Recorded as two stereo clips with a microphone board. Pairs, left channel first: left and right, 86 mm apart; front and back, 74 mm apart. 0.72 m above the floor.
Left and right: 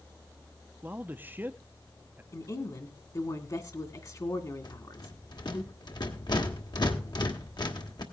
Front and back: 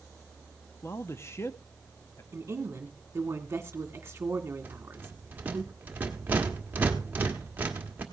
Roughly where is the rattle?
Behind left.